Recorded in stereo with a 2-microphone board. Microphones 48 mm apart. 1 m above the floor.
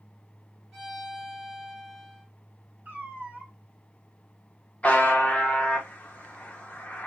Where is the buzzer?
25° left (ahead or behind), 0.7 m.